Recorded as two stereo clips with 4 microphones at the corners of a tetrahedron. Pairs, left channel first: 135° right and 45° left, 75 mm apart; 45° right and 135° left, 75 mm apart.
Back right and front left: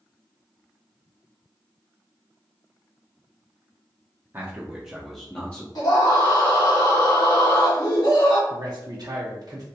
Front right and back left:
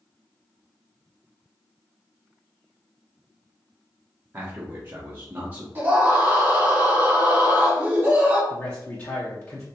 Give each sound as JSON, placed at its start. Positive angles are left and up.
{"t": 4.3, "sound": "a man speaking", "azimuth_deg": 85, "distance_m": 0.9}
{"t": 5.8, "sound": "a scream", "azimuth_deg": -160, "distance_m": 1.9}
{"t": 8.5, "sound": "a man speaking", "azimuth_deg": 10, "distance_m": 0.6}